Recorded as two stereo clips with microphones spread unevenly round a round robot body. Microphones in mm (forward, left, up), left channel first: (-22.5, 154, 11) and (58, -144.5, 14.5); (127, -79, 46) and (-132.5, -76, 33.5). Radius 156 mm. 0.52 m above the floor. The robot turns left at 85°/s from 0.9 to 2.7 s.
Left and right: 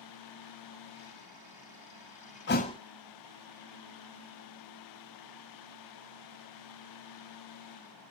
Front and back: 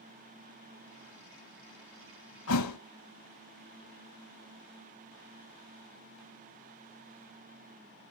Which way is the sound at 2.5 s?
50° left.